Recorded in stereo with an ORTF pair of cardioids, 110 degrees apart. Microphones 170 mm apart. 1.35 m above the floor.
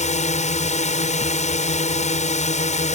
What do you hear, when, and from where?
0.0 s a drone: 45° left